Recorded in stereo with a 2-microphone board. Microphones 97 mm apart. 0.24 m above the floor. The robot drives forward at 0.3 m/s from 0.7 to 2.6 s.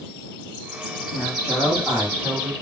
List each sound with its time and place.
1.1 s a woman speaking: 10° right (ahead or behind), 1.4 m